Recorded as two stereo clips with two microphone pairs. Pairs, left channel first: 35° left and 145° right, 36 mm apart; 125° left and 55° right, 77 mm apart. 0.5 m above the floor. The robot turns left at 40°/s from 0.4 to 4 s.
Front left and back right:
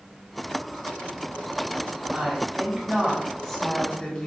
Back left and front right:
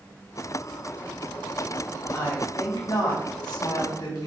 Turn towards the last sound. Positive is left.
turn(degrees=95)